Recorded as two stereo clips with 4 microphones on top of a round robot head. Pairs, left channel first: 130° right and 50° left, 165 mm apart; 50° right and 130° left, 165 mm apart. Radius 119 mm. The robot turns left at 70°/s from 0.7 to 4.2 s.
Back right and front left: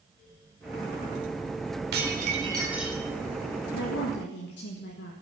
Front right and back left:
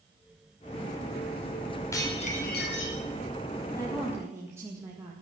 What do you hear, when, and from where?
1.9 s dishes clattering: 25° left, 4.5 m; by 3.0 s 50° right, 4.5 m
3.7 s a woman speaking: 120° right, 2.0 m; by 5.1 s 155° right, 2.0 m